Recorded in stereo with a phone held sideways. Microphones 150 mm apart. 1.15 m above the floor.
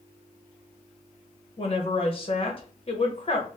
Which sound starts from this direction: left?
A woman speaking, at 1.6 s.